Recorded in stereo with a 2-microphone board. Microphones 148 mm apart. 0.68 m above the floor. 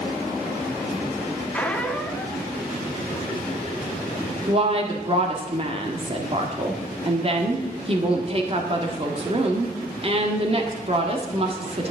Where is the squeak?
10° left (ahead or behind), 0.7 m.